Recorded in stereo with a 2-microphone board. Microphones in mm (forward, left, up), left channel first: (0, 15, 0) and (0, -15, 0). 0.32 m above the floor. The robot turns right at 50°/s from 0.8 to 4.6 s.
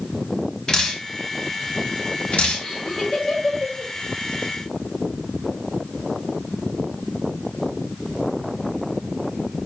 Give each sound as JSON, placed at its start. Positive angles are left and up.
{"t": 0.7, "sound": "dripping", "side_deg": 20, "distance_m": 1.6}
{"t": 2.6, "sound": "laughter", "side_deg": 45, "distance_m": 1.6}